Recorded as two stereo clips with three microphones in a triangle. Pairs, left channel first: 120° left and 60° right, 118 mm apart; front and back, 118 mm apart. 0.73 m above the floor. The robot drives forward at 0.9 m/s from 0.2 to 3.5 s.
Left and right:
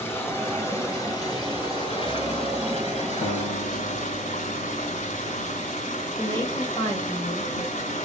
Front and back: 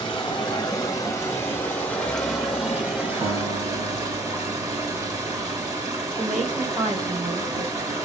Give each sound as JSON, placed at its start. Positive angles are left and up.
{"t": 0.0, "sound": "running water", "azimuth_deg": 50, "distance_m": 3.0}
{"t": 3.2, "sound": "a guitar", "azimuth_deg": 135, "distance_m": 1.1}
{"t": 6.2, "sound": "a woman speaking", "azimuth_deg": -165, "distance_m": 4.0}